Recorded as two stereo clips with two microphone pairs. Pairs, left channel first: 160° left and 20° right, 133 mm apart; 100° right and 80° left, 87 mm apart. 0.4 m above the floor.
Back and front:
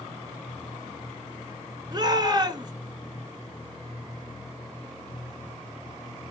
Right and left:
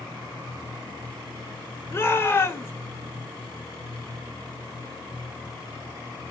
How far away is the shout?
About 1.4 m.